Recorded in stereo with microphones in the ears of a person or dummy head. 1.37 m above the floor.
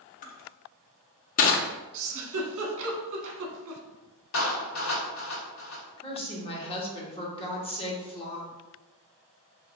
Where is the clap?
75° left (ahead or behind), 1.7 m.